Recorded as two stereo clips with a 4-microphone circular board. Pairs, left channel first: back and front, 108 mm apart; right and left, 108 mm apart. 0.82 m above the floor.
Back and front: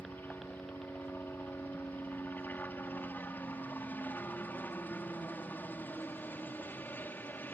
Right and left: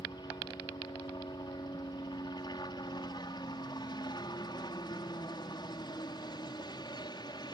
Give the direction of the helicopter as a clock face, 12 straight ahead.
4 o'clock.